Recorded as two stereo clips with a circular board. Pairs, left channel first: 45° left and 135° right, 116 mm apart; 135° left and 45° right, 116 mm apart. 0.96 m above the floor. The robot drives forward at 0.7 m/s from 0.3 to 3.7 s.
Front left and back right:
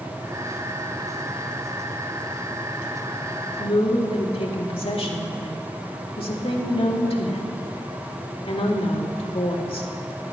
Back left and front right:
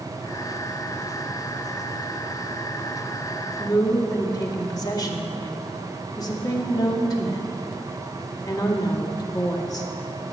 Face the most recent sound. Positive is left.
turn(degrees=80)